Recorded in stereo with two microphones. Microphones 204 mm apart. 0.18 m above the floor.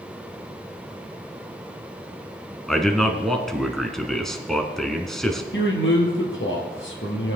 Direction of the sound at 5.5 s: 70° left (ahead or behind).